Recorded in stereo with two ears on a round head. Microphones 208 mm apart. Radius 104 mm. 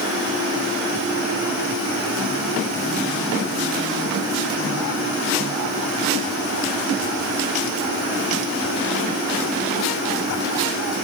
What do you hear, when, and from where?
Only background noise.